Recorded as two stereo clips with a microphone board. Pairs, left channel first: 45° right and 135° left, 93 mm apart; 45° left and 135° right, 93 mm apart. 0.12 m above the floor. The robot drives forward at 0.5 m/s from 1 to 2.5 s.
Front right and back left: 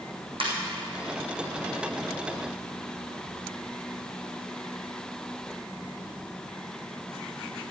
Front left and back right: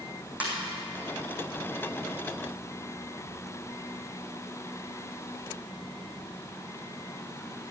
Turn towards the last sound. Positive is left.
turn(degrees=155)